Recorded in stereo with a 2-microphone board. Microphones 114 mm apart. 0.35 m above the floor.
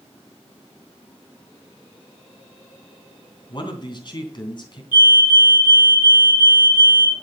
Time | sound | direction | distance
3.5 | a man speaking | 40° left (ahead or behind) | 3 m
4.9 | a fire alarm | 45° left (ahead or behind) | 2.5 m